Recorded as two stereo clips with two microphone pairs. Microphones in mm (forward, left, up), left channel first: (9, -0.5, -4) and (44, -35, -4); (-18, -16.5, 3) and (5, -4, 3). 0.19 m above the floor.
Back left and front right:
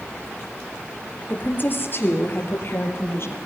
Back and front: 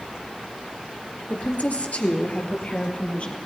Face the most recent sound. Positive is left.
turn(degrees=165)